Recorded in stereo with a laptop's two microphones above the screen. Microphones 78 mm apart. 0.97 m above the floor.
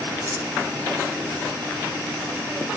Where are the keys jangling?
25° right (ahead or behind), 5.5 m.